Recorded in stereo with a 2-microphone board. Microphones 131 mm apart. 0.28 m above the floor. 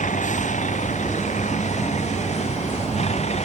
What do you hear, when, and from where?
0.0 s a vehicle: 70° left (ahead or behind); by 3.4 s 55° left (ahead or behind)